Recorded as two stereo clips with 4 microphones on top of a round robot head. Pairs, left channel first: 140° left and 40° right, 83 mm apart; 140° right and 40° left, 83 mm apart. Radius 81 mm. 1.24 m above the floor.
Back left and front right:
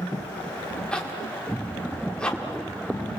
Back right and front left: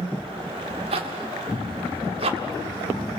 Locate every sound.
0.9 s a zipper: 55° left, 1.7 m